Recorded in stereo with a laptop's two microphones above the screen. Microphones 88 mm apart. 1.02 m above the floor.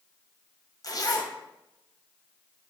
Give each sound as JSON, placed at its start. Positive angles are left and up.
{"t": 0.8, "sound": "a zipper", "side_deg": 45, "distance_m": 0.6}